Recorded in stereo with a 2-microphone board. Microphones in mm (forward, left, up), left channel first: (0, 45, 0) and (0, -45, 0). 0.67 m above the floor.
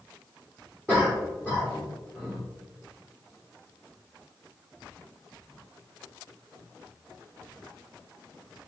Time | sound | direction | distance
0.9 | a cough | centre (ahead or behind) | 2 m